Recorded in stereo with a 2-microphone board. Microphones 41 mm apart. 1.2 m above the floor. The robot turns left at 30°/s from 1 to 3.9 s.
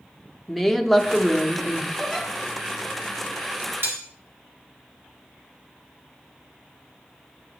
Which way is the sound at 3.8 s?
75° right (ahead or behind).